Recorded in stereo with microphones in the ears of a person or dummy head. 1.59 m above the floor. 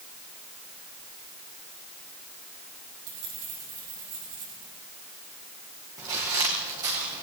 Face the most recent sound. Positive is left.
turn(degrees=-30)  # may be behind; listen again after turning